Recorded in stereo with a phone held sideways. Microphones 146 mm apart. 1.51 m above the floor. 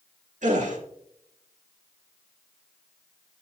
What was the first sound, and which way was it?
A gasp, 55° right (ahead or behind).